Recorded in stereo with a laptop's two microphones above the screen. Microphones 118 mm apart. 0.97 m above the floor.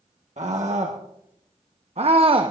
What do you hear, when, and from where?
0.4 s a scream: 80° right, 1.7 m; by 2.5 s 45° right (ahead or behind), 1.0 m